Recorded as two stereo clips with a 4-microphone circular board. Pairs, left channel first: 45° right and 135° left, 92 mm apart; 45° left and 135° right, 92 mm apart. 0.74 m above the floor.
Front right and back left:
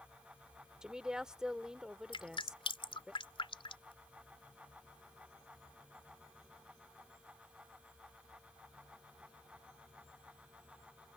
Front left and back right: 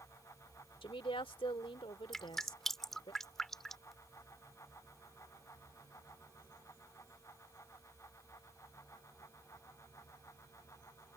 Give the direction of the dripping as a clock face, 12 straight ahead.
1 o'clock.